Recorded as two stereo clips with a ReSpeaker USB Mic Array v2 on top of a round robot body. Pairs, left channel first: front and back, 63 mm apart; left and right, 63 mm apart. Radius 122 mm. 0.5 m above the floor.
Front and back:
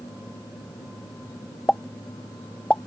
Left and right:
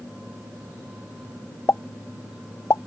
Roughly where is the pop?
Ahead left.